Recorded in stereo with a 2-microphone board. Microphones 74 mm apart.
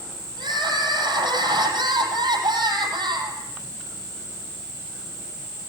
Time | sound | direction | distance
0.4 | crying | 80° right | 8 m